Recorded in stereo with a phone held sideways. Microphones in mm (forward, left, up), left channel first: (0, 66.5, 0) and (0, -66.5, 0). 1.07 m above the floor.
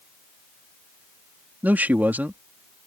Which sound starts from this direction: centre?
A man speaking, at 1.6 s.